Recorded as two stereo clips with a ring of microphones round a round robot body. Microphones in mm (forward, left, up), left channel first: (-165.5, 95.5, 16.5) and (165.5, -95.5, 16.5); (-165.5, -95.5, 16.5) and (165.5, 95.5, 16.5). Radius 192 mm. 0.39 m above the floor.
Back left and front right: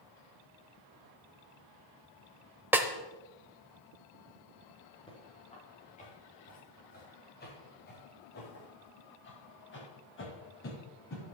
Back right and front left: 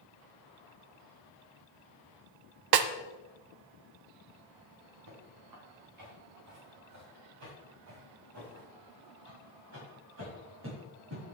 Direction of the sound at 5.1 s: 75° left.